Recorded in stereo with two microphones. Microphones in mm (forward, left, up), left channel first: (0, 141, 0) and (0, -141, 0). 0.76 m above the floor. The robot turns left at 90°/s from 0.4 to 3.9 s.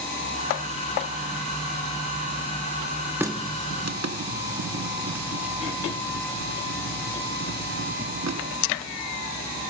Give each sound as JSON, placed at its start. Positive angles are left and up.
{"t": 3.2, "sound": "a running tap", "side_deg": -5, "distance_m": 0.7}